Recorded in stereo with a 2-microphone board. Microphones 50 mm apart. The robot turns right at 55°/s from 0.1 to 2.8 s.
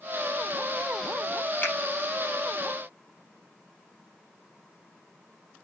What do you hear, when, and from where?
1.6 s a finger snap: 40° left (ahead or behind), 4.5 m; by 1.7 s 45° left (ahead or behind), 4.5 m